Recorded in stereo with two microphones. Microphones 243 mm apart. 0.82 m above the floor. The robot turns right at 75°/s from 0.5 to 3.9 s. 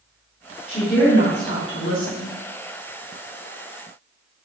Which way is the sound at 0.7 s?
35° left.